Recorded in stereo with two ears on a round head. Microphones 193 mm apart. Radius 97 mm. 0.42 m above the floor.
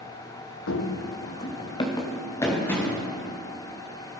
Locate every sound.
0.7 s running footsteps: 70° left (ahead or behind), 1.0 m; by 3.0 s 10° left (ahead or behind), 3.5 m